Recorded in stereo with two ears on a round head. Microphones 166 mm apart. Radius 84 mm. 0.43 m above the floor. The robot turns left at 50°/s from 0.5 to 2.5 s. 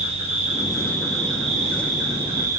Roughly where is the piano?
I don't hear a piano.